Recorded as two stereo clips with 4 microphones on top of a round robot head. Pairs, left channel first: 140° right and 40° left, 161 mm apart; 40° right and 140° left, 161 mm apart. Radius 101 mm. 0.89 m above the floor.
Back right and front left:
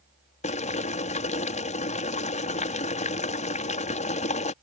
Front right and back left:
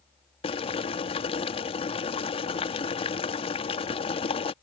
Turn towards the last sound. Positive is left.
turn(degrees=-95)